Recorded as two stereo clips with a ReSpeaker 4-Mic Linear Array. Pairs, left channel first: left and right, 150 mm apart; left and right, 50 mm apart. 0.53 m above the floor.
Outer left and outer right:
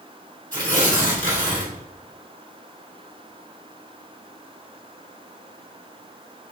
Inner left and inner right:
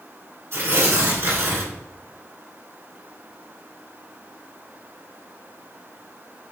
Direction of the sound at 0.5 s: 60° right (ahead or behind).